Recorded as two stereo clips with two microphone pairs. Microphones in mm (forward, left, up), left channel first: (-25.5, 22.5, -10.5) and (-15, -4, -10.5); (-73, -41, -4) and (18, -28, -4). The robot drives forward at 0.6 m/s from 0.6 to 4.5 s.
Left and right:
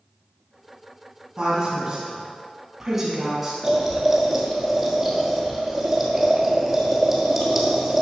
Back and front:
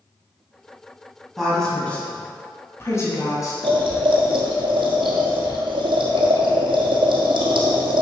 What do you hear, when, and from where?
1.4 s a woman speaking: 85° right, 1.5 m; by 3.5 s 150° right, 2.0 m
3.6 s boiling: 10° left, 1.7 m; by 8.0 s 15° left, 1.2 m